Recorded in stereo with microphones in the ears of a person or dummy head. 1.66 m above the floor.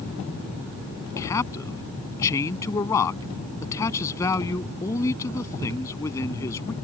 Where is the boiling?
No boiling in this recording.